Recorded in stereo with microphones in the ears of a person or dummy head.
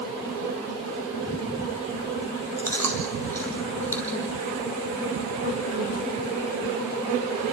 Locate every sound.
2.6 s chewing: 10° left (ahead or behind), 3 m